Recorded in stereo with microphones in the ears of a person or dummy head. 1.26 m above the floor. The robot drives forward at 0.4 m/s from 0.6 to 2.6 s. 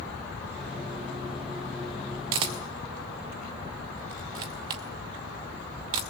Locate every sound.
2.3 s a camera shutter: 20° right (ahead or behind), 0.6 m